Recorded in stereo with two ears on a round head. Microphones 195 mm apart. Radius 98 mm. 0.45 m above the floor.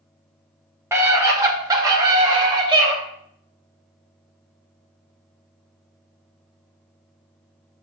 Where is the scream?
10° right (ahead or behind), 1.1 m; by 2.9 s 20° right (ahead or behind), 1.9 m.